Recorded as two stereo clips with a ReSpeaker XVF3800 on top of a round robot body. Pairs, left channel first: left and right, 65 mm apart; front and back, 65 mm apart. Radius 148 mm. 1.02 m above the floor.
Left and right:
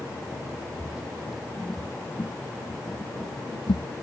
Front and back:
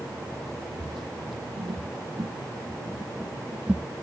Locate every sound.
0.8 s footsteps: 170° right; by 3.9 s 100° left